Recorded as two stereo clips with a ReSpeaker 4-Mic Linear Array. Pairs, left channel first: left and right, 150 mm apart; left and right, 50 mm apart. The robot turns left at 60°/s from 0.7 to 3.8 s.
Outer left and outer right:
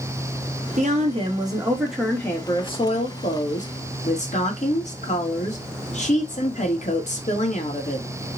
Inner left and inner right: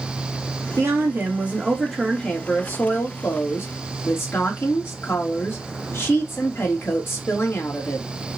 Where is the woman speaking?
105° right, 1.5 m; by 8.1 s 70° left, 1.5 m.